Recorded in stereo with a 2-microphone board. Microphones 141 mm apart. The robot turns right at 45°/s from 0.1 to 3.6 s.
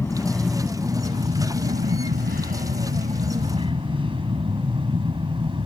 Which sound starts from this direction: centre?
An aircraft, at 0.0 s.